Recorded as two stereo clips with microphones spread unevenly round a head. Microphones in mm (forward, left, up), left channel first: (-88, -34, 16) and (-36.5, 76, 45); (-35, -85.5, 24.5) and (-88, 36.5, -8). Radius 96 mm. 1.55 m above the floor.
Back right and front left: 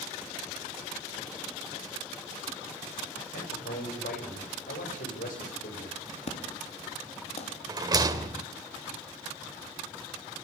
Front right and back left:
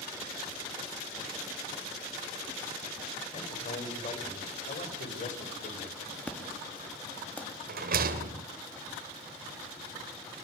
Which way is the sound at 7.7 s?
115° left.